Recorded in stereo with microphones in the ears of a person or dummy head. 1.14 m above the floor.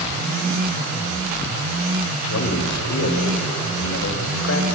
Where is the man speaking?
65° left (ahead or behind), 4.5 m.